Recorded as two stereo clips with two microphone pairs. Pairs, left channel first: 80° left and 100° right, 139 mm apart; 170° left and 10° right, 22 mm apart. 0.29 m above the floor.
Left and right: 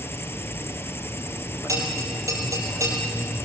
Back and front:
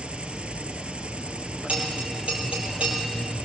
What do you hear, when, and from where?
0.0 s an insect: 5° left, 0.9 m
1.7 s a bell: 35° right, 5 m